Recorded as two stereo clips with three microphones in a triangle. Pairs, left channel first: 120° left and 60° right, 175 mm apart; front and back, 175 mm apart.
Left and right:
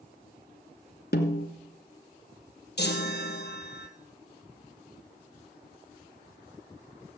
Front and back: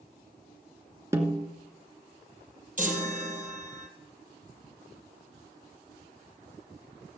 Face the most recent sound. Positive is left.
turn(degrees=140)